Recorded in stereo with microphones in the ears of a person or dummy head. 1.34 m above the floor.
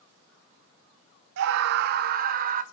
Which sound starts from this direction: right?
A scream, at 1.4 s.